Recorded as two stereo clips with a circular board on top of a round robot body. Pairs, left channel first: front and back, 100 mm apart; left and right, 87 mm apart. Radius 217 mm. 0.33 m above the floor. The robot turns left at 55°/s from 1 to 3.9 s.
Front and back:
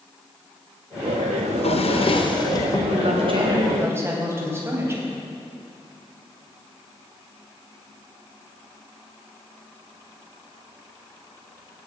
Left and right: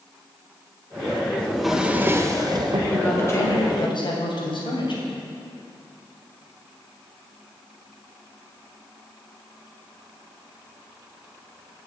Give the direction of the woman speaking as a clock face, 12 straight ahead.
6 o'clock.